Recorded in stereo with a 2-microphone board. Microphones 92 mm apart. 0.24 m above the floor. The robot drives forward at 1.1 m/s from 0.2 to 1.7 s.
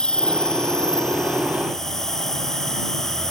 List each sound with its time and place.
0.0 s an insect: 10° left (ahead or behind); by 3.3 s 5° left (ahead or behind)